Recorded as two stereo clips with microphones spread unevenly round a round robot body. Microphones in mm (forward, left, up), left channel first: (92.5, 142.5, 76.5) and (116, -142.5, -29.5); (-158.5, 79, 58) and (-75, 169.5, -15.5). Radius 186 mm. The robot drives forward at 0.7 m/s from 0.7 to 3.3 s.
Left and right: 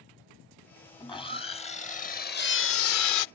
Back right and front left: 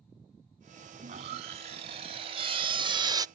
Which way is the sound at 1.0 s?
15° left.